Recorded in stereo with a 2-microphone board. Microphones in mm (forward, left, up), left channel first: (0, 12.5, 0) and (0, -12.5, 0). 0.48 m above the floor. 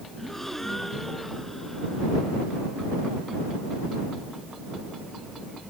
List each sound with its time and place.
0.2 s a gasp: 15° left (ahead or behind)